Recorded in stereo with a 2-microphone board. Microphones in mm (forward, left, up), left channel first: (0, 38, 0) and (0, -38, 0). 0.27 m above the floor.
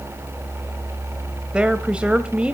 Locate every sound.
1.5 s a woman speaking: 15° right (ahead or behind), 1.0 m